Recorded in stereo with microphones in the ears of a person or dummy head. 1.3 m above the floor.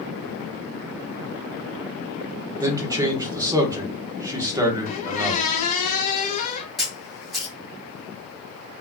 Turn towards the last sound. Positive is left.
turn(degrees=0)  # may be behind; listen again after turning